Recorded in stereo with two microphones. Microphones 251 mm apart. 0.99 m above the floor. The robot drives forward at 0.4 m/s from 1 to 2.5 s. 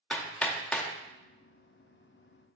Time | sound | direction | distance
0.1 | hammering | 5° left (ahead or behind) | 0.7 m